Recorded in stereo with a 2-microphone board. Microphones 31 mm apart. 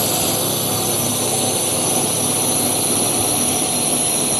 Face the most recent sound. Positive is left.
turn(degrees=0)  # may be behind; listen again after turning